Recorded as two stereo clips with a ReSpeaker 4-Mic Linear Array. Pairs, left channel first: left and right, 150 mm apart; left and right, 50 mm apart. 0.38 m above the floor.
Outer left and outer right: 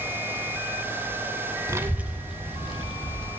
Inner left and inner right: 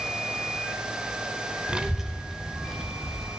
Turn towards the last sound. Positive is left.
turn(degrees=5)  # may be behind; listen again after turning